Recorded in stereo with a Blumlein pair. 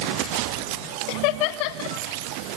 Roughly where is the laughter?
Ahead left.